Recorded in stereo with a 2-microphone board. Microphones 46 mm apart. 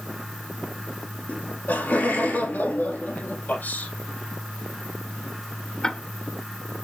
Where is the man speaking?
45° left (ahead or behind), 5.5 m.